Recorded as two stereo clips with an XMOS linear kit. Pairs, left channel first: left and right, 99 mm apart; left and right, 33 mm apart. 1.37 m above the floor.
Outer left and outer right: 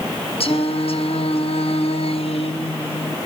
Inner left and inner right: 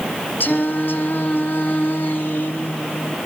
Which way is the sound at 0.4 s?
70° left (ahead or behind).